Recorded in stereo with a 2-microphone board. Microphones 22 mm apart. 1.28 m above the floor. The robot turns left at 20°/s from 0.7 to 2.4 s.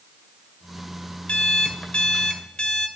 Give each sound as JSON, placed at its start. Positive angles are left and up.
{"t": 1.3, "sound": "an alarm clock", "side_deg": 65, "distance_m": 1.8}